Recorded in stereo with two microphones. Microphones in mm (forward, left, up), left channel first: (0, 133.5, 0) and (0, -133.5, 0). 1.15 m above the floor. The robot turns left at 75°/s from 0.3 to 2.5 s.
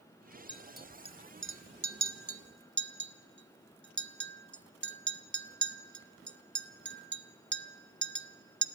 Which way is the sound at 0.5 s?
20° left (ahead or behind).